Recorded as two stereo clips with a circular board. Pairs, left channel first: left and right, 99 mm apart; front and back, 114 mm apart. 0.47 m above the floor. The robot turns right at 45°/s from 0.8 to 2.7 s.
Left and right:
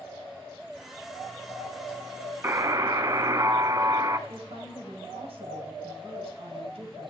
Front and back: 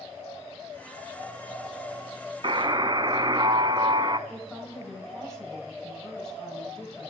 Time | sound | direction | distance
2.4 | a buzzer | 150° right | 0.6 m
4.3 | a woman speaking | 85° right | 2.5 m